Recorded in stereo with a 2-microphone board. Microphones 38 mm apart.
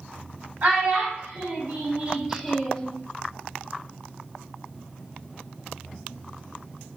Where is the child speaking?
55° right (ahead or behind), 1.7 m; by 2.9 s 25° left (ahead or behind), 0.5 m.